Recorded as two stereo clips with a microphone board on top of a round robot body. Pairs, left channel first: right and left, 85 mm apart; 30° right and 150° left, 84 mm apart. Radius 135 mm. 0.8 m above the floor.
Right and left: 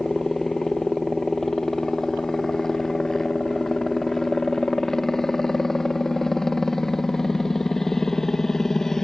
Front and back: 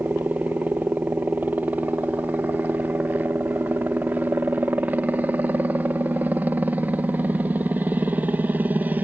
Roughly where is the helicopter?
Behind.